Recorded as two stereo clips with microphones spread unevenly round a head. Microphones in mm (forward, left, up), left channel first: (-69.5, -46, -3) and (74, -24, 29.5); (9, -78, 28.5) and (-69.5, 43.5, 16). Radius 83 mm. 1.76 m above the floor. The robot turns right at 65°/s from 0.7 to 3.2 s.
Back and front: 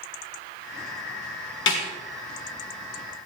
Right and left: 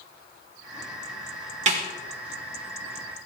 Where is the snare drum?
165° left, 2.5 m; by 1.8 s 175° left, 2.5 m.